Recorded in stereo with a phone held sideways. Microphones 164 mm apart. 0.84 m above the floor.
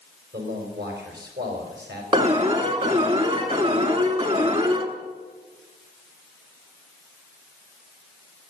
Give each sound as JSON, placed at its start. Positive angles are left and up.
{"t": 0.3, "sound": "a man speaking", "side_deg": -75, "distance_m": 4.5}
{"t": 2.1, "sound": "an alarm", "side_deg": -35, "distance_m": 1.6}